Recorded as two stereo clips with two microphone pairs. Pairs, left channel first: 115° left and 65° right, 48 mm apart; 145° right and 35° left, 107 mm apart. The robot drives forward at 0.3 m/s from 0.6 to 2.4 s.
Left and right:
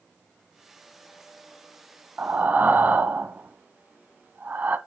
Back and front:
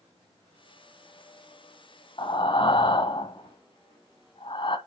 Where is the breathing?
115° right, 1.0 m.